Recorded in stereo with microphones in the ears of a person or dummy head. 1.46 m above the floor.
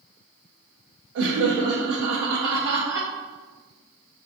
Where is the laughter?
70° right (ahead or behind), 0.5 m.